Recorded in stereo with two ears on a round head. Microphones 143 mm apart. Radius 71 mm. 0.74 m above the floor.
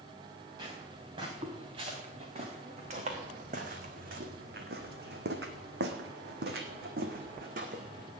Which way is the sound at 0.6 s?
30° right (ahead or behind).